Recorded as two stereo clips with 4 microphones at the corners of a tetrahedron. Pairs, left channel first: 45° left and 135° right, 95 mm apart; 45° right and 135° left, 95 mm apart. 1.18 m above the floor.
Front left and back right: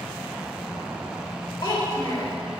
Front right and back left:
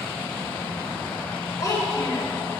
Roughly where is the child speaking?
Ahead.